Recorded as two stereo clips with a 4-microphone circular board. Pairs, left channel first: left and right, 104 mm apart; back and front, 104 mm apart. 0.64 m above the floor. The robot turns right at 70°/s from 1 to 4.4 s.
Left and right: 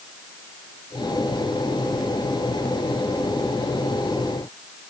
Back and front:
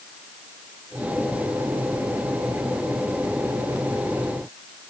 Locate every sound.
Only background noise.